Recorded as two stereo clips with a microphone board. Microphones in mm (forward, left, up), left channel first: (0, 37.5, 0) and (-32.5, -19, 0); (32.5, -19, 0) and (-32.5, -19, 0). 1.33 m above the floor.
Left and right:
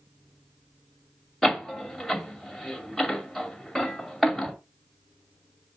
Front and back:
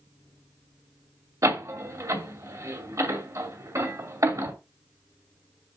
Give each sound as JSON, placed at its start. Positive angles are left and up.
{"t": 1.4, "sound": "a door slam", "azimuth_deg": 150, "distance_m": 2.5}